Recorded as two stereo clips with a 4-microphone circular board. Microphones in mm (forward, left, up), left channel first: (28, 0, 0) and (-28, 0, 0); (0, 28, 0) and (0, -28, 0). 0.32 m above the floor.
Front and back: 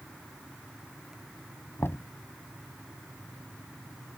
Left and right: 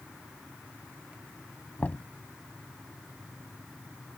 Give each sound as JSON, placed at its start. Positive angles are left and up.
{"t": 1.8, "sound": "knocking", "azimuth_deg": 35}